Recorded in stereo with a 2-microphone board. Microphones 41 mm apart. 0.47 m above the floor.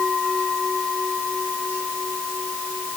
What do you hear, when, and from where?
Only background noise.